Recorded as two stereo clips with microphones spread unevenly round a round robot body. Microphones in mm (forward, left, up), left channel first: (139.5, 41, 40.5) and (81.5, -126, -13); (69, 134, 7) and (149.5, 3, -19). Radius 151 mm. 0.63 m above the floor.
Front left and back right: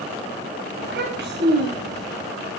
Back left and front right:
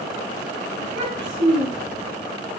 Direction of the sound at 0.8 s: 95° right.